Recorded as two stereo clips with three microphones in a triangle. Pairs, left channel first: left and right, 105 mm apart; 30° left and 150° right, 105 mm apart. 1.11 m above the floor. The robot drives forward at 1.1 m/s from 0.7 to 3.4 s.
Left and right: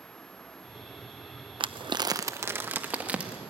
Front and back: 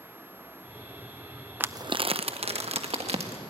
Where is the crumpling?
80° right, 0.5 m; by 3.4 s 170° right, 2.0 m.